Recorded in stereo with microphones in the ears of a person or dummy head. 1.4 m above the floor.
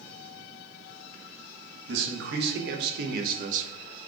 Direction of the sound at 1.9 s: 75° right (ahead or behind).